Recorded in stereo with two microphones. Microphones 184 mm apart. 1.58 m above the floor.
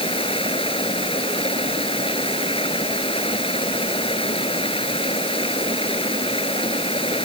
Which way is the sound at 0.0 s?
30° left (ahead or behind).